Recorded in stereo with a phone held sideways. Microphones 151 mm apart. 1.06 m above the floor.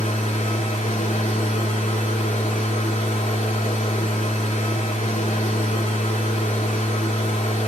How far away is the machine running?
About 3 m.